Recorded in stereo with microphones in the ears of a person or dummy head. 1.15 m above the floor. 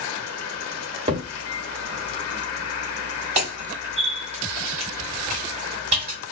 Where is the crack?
35° right (ahead or behind), 1.2 m.